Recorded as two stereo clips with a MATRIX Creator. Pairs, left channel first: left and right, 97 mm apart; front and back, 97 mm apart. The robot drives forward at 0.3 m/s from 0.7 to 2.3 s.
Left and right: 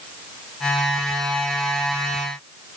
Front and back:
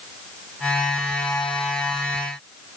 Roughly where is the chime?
I don't hear a chime.